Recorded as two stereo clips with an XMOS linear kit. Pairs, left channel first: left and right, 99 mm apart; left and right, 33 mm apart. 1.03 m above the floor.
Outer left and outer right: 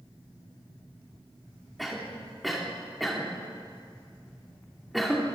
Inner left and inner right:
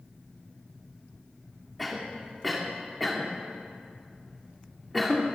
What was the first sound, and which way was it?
A cough, centre (ahead or behind).